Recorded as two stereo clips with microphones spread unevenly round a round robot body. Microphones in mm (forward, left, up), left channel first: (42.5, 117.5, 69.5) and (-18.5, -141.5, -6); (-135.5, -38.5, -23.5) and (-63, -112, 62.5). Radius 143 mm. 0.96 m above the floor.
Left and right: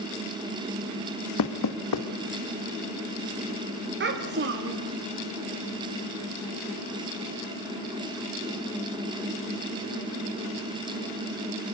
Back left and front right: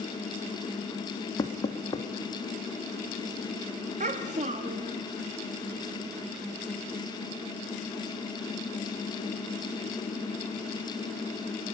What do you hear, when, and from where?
1.4 s knocking: 95° left, 1.5 m
4.0 s a child speaking: 55° right, 1.5 m